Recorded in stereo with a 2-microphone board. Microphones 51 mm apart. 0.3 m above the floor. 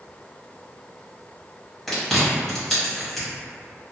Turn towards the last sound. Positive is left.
turn(degrees=5)  # may be behind; listen again after turning